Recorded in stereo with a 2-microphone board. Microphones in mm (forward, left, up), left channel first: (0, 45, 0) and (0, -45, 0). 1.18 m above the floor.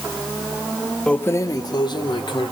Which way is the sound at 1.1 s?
10° left (ahead or behind).